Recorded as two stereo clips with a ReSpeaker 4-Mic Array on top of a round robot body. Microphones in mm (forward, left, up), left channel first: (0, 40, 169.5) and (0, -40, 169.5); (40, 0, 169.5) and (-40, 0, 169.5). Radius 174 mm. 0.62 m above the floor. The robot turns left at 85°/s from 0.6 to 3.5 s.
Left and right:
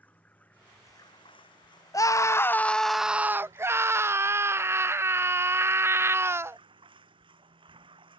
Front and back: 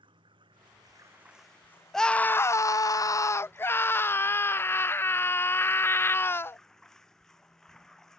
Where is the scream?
85° left; by 6.6 s 50° right.